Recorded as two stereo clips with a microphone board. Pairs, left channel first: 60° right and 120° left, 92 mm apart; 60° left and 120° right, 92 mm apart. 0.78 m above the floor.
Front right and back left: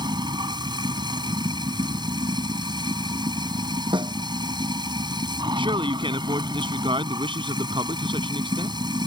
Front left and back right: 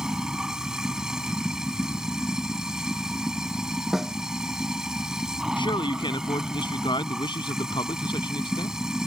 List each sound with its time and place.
0.0 s running water: 155° left
3.9 s a snare drum: 155° left
5.6 s a man speaking: 90° left